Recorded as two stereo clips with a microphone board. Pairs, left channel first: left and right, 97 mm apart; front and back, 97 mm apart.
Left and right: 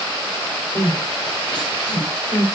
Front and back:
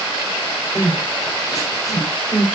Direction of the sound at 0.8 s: 55° left.